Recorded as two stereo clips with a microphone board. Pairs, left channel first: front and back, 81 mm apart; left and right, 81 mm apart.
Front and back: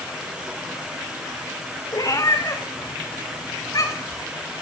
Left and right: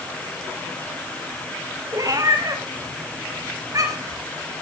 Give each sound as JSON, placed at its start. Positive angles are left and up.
{"t": 1.9, "sound": "a cat meowing", "azimuth_deg": -45, "distance_m": 3.0}